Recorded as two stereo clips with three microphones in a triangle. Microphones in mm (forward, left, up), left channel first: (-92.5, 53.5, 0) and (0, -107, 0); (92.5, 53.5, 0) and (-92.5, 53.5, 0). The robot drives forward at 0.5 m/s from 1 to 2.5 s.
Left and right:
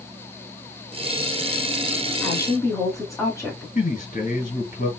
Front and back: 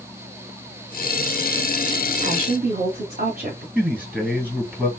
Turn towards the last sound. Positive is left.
turn(degrees=100)